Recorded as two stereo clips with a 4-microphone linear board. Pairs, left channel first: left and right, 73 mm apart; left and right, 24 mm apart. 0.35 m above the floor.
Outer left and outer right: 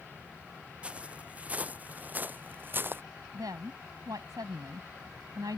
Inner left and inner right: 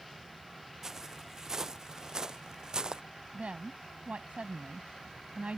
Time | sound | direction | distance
0.8 | footsteps | 15° right (ahead or behind) | ?
3.3 | a woman speaking | 65° right (ahead or behind) | ?